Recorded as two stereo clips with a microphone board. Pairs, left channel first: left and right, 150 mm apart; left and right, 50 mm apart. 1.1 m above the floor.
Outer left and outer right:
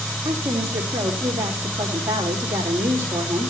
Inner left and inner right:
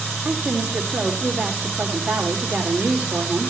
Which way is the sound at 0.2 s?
15° right (ahead or behind).